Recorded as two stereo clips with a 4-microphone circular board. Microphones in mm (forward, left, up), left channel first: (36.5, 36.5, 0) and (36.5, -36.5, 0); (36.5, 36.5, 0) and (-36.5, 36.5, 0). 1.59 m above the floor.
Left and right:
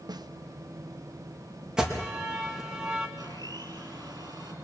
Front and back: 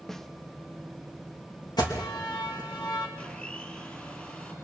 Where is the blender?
70° right, 4 m.